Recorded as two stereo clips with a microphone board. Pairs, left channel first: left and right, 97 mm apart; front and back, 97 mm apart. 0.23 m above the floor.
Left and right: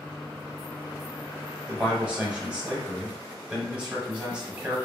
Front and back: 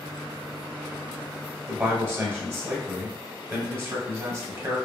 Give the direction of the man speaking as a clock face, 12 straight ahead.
5 o'clock.